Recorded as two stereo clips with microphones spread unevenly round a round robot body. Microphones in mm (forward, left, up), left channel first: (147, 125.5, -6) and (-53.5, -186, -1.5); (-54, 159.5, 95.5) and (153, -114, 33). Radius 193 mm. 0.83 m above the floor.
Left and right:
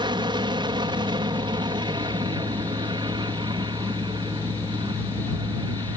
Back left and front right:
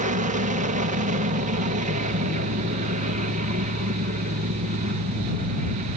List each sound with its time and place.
0.0 s an aircraft: 55° right